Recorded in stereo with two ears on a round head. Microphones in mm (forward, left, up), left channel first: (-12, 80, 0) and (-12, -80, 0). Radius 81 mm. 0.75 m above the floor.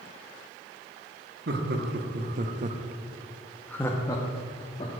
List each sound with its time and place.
1.5 s laughter: 60° right (ahead or behind), 1.3 m; by 5.0 s 35° left (ahead or behind), 1.5 m